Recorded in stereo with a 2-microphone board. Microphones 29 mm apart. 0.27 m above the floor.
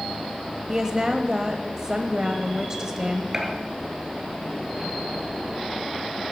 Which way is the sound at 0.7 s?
20° right (ahead or behind).